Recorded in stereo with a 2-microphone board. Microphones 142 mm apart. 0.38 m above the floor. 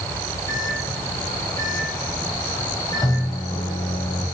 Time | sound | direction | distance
0.5 | a microwave | 25° left (ahead or behind) | 2.0 m